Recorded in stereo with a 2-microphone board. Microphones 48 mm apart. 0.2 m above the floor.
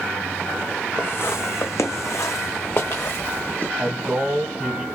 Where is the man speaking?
20° right (ahead or behind), 1.2 m.